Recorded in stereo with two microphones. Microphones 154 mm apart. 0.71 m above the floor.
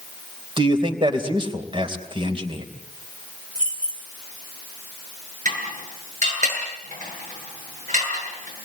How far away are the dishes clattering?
About 8.5 m.